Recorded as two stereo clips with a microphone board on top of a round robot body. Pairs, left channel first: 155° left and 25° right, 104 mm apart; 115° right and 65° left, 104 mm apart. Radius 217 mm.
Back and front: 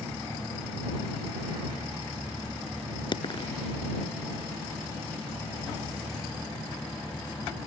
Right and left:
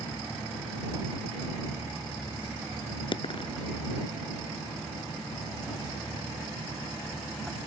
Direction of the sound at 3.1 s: 155° right.